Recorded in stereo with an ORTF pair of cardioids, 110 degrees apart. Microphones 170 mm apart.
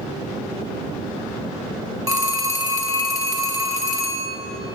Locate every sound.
2.1 s a phone ringing: 25° right, 1.2 m